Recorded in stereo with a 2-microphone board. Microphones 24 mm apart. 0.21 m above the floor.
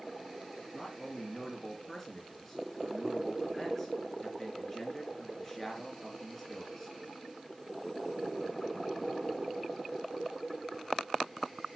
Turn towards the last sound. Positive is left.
turn(degrees=15)  # may be behind; listen again after turning